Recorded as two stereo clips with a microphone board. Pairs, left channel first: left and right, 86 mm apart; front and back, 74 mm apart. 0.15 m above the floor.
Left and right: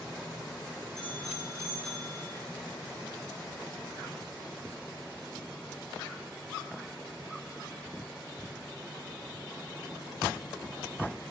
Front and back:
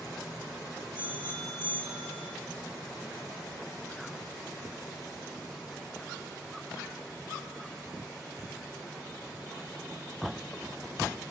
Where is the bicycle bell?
175° left, 8 m.